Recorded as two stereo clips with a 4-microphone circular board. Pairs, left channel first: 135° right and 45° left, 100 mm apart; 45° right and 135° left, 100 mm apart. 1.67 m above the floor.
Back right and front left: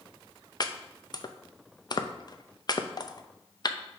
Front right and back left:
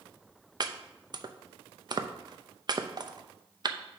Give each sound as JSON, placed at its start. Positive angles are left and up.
{"t": 0.6, "sound": "chopping", "azimuth_deg": 180, "distance_m": 0.6}